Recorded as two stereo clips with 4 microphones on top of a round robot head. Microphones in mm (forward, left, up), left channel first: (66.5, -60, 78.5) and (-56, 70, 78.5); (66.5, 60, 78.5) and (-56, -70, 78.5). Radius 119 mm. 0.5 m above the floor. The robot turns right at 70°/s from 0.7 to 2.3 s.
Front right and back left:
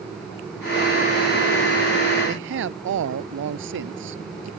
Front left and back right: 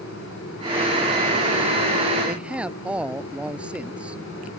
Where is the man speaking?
140° left; by 4.5 s 145° left.